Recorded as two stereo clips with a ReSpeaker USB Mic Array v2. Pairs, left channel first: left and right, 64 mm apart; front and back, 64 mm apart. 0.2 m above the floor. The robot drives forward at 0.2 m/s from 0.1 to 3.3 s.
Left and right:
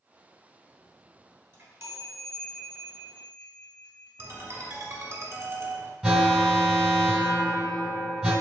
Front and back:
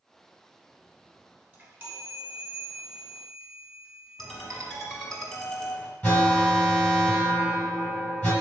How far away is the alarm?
About 1.6 m.